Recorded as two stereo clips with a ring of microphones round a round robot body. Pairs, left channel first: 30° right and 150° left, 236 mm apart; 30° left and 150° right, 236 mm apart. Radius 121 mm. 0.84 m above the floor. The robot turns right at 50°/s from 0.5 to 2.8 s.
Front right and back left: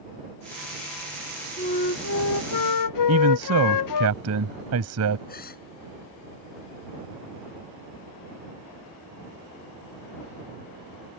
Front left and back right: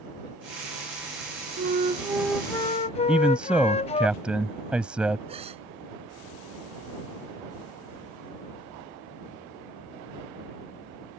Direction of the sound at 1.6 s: 100° right.